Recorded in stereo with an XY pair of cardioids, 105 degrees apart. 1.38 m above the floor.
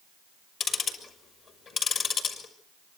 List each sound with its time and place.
0.6 s ticking: 60° left, 5.5 m